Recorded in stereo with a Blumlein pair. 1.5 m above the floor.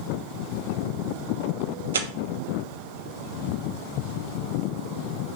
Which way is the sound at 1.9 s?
65° right.